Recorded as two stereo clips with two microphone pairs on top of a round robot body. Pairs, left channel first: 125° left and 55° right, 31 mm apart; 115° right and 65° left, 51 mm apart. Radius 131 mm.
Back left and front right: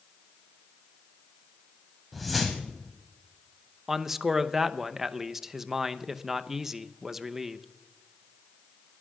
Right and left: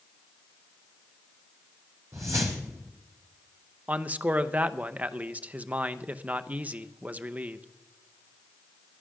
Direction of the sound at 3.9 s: 20° left.